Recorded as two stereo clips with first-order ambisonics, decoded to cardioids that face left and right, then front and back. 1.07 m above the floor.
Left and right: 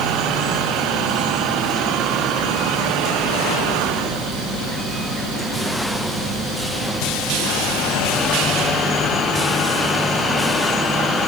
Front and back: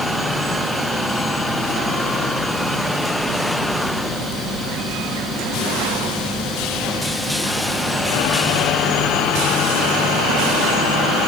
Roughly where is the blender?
I don't hear a blender.